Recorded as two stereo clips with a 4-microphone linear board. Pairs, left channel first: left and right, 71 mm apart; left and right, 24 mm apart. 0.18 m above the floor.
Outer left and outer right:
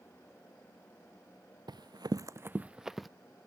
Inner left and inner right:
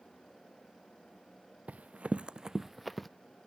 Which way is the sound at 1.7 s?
80° right.